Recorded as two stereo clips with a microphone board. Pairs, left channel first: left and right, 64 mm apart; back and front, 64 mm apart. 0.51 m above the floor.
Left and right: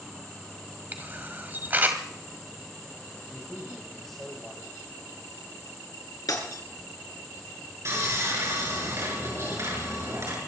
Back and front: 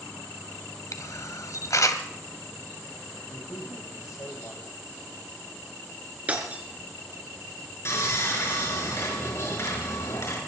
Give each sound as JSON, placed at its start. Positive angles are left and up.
{"t": 0.9, "sound": "a camera shutter", "azimuth_deg": -150, "distance_m": 1.7}
{"t": 3.3, "sound": "a man speaking", "azimuth_deg": 175, "distance_m": 3.0}
{"t": 6.3, "sound": "breaking glass", "azimuth_deg": 65, "distance_m": 3.5}
{"t": 7.8, "sound": "sawing", "azimuth_deg": -135, "distance_m": 6.5}